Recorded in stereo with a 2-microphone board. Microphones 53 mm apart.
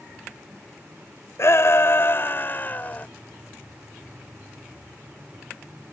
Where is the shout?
55° left (ahead or behind); by 3.1 s 30° left (ahead or behind).